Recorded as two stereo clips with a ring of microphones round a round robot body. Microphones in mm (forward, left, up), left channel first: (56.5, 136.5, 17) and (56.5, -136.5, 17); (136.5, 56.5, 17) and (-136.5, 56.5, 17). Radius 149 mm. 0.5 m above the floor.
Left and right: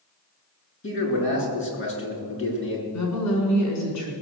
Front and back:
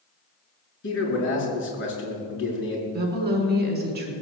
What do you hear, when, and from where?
0.8 s a man speaking: 45° left, 6.5 m
2.9 s a woman speaking: 125° left, 5.5 m